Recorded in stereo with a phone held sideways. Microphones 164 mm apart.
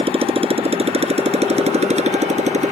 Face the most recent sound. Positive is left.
turn(degrees=-45)  # may be behind; listen again after turning